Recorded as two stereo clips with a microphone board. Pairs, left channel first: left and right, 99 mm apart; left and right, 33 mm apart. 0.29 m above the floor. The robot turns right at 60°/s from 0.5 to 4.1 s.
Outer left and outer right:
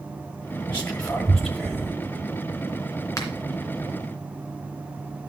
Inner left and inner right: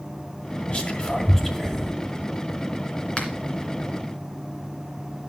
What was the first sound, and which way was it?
Whispering, 25° left (ahead or behind).